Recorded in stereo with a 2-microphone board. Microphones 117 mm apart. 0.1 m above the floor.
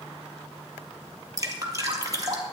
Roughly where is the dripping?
Right.